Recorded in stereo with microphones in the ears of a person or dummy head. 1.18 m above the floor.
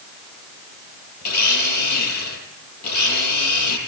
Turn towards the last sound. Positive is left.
turn(degrees=50)  # may be behind; listen again after turning